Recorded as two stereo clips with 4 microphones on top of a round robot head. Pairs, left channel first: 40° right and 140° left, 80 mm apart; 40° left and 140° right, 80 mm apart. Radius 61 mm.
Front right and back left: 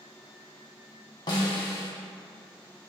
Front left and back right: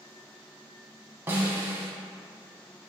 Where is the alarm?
No alarm in this recording.